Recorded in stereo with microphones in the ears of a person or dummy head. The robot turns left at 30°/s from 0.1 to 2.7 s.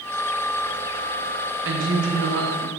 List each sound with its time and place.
1.6 s a woman speaking: 90° right, 1.4 m; by 2.7 s 120° right, 1.4 m